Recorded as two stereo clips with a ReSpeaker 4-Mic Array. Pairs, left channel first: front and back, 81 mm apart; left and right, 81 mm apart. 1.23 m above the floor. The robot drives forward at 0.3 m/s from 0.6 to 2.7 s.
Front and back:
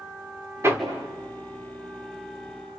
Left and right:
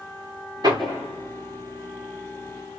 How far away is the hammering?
About 3.5 m.